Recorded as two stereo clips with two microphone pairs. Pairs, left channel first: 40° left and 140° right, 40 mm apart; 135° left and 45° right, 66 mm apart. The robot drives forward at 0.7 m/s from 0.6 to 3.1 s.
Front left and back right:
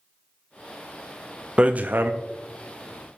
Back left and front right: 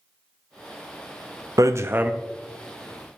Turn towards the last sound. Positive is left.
turn(degrees=-150)